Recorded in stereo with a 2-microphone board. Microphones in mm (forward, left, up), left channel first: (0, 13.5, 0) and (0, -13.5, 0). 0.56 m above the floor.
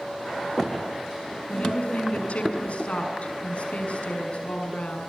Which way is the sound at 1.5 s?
55° left (ahead or behind).